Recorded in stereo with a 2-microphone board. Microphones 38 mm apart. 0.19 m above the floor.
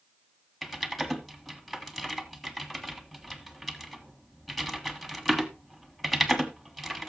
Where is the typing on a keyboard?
Centre (ahead or behind), 1.4 m.